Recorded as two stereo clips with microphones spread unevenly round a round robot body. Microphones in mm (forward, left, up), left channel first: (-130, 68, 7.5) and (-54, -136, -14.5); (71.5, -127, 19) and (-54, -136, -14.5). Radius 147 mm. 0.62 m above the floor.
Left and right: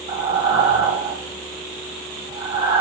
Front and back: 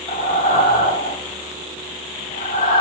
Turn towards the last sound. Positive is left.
turn(degrees=-5)